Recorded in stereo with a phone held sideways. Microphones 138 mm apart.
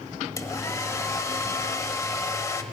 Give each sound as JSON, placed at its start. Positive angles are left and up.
{"t": 0.4, "sound": "a hair dryer", "side_deg": 25, "distance_m": 1.2}